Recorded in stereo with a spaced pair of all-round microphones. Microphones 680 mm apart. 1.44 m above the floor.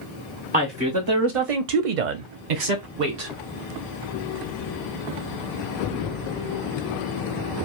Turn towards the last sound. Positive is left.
turn(degrees=-55)  # may be behind; listen again after turning